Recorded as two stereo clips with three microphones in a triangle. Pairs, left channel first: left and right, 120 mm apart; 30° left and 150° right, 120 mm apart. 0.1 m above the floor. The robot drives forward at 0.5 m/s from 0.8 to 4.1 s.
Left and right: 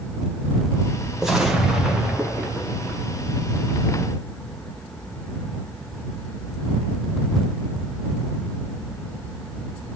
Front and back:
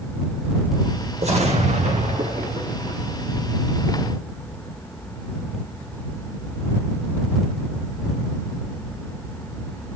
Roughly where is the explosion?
Behind.